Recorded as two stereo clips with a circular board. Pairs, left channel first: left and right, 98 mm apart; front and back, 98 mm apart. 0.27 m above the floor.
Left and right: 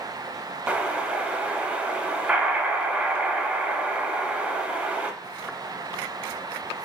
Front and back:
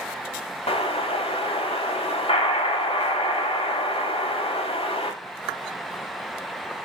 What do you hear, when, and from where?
0.7 s an explosion: 10° right, 0.5 m